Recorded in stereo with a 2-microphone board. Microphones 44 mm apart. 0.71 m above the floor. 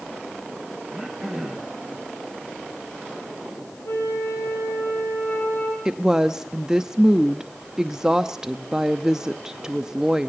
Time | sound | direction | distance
0.9 | throat clearing | 5° right (ahead or behind) | 4 m
3.9 | a flute | 85° left | 5 m
5.8 | a woman speaking | 10° right (ahead or behind) | 0.7 m